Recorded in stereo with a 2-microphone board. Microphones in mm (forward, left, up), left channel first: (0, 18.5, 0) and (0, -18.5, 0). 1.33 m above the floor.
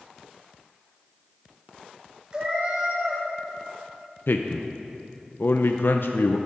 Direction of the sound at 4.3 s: 75° left (ahead or behind).